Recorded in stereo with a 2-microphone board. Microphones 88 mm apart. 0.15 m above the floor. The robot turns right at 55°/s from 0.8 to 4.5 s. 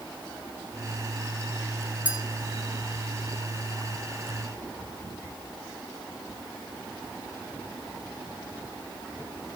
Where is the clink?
15° right (ahead or behind), 1.0 m; by 2.2 s 20° right (ahead or behind), 1.0 m.